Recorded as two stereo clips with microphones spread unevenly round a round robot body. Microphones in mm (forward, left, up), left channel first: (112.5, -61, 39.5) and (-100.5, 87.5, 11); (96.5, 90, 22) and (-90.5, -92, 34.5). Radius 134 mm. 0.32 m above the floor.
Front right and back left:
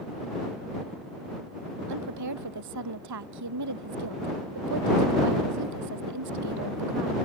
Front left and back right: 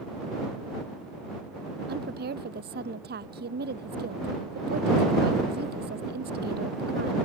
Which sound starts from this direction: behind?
A woman speaking, at 1.9 s.